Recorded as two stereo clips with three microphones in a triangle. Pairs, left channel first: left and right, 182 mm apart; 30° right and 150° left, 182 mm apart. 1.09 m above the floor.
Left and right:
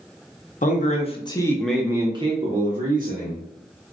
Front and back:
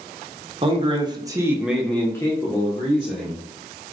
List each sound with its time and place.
0.6 s a man speaking: 105° left, 0.8 m; by 3.4 s 80° right, 1.1 m